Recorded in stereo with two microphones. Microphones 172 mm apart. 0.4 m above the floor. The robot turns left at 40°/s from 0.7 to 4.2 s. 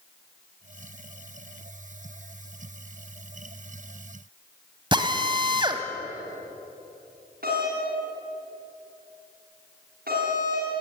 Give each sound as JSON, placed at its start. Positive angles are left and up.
{"t": 4.9, "sound": "a drill", "side_deg": -25, "distance_m": 1.4}
{"t": 7.4, "sound": "a doorbell", "side_deg": -65, "distance_m": 6.0}